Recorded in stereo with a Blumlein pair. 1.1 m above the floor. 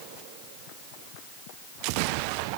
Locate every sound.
Only background noise.